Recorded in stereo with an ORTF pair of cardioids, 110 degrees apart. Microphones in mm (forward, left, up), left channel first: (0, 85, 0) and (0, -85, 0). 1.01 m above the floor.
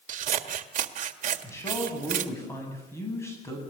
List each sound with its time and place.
0.1 s scissors: 50° right, 1.6 m
1.4 s a man speaking: 15° left, 8.5 m